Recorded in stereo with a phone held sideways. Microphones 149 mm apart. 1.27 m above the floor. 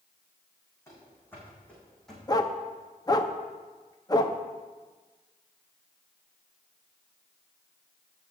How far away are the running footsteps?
About 4.5 m.